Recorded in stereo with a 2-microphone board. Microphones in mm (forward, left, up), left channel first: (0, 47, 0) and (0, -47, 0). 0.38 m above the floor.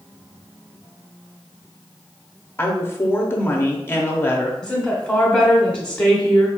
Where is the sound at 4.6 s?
15° left (ahead or behind), 1.0 m.